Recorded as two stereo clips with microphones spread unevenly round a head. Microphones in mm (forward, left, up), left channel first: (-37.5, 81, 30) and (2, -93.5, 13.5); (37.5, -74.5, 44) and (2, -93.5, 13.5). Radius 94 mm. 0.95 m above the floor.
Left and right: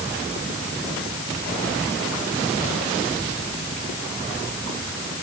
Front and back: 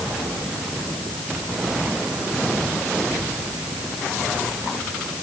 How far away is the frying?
No frying in this recording.